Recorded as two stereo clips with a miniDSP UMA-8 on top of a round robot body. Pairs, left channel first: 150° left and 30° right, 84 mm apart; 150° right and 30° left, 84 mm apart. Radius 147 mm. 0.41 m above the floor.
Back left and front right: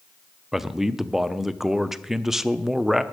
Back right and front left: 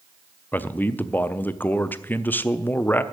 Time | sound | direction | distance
0.5 | a man speaking | 110° right | 0.8 m